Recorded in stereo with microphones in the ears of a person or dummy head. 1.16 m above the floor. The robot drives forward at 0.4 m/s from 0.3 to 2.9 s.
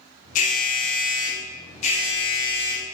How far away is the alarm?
About 0.8 m.